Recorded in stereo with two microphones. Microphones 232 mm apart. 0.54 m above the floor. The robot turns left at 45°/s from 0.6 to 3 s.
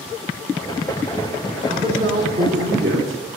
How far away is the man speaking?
About 2 m.